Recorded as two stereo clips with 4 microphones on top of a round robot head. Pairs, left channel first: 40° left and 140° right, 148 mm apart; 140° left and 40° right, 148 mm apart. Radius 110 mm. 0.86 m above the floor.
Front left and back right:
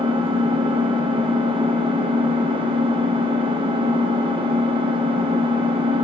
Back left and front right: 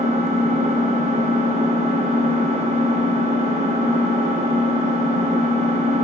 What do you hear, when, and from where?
0.0 s an engine running: 85° right, 0.9 m